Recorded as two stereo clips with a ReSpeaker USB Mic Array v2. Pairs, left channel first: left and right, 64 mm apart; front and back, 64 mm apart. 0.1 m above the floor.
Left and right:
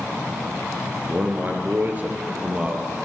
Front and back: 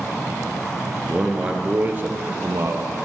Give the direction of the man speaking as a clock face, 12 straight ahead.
3 o'clock.